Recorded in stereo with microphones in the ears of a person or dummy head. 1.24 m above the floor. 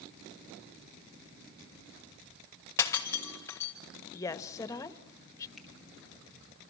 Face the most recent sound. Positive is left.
turn(degrees=0)  # may be behind; listen again after turning